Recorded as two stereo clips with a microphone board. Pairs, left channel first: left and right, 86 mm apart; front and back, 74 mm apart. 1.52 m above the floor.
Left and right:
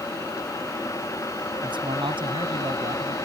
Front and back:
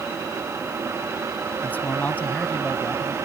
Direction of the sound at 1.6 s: 70° right.